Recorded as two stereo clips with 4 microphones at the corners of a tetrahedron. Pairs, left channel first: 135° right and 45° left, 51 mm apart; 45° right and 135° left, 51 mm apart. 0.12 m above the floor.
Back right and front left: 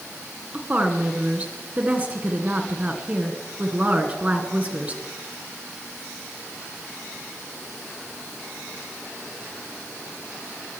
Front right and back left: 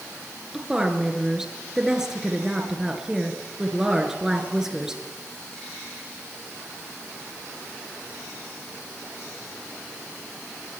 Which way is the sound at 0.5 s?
70° left.